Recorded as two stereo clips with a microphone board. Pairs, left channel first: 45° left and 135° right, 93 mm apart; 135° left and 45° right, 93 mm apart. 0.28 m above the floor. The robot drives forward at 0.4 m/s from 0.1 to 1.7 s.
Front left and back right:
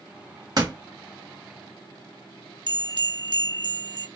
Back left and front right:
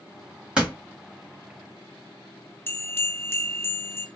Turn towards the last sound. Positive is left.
turn(degrees=-165)